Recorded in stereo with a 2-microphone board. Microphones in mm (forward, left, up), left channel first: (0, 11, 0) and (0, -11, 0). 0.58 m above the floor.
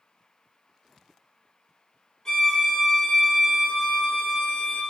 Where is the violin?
30° left (ahead or behind), 1.3 m.